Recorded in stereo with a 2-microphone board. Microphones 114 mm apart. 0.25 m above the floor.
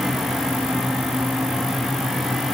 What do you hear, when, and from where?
Only background noise.